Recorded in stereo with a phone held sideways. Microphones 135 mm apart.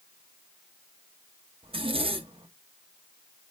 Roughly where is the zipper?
Right.